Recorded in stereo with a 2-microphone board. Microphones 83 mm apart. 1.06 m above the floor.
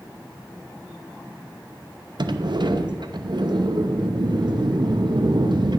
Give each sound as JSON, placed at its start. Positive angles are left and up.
{"t": 2.2, "sound": "a sliding door", "side_deg": -60, "distance_m": 0.7}